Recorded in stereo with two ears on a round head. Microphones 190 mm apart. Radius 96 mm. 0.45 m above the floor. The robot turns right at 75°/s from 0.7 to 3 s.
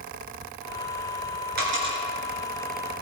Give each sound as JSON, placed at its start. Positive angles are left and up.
{"t": 1.6, "sound": "a dropped coin", "side_deg": -45, "distance_m": 3.0}